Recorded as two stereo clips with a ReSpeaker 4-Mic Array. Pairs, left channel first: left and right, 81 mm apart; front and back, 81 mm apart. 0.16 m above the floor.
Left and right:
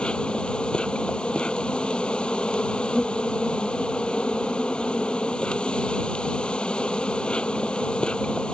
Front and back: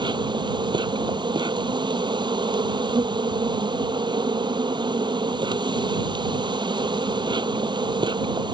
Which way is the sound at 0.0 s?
165° left.